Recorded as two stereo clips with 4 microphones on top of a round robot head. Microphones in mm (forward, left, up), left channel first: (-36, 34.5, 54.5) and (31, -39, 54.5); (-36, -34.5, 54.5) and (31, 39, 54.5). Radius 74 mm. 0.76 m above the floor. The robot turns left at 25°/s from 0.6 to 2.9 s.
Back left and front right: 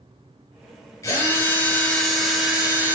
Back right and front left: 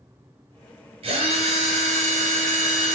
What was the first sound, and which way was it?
A drill, 75° left.